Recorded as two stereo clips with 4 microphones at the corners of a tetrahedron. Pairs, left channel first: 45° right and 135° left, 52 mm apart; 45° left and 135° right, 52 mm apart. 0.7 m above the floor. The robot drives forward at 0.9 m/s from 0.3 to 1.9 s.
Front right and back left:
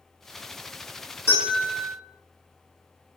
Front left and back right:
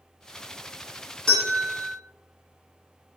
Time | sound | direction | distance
1.3 | a bell | 25° right | 1.7 m